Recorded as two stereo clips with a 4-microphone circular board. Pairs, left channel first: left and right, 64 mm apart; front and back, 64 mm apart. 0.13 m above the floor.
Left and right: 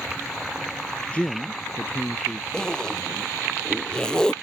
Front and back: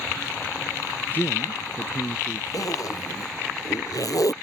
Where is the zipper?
10° left.